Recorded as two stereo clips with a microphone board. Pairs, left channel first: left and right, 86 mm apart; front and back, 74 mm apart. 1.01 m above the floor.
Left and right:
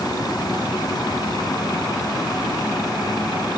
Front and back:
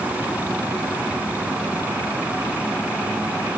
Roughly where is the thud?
No thud in this recording.